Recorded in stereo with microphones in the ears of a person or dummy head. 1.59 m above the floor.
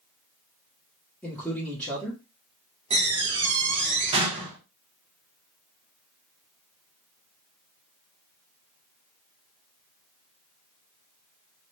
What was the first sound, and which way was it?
A man speaking, 5° left (ahead or behind).